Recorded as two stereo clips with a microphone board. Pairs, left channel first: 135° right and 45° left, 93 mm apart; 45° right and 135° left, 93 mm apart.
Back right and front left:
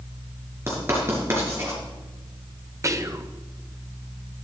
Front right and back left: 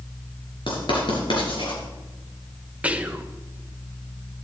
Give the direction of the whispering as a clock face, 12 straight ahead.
10 o'clock.